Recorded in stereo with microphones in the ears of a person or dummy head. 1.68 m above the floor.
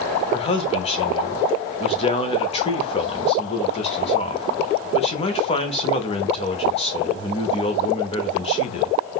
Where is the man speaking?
30° left (ahead or behind), 0.6 m.